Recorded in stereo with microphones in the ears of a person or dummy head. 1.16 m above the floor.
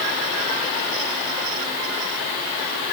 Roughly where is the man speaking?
I don't hear a man speaking.